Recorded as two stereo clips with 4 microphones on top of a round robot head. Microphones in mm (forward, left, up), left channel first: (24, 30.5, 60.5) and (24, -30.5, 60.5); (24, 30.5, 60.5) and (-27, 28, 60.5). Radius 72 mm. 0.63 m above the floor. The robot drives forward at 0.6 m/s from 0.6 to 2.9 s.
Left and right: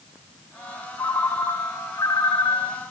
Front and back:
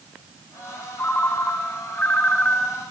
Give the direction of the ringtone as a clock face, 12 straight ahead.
10 o'clock.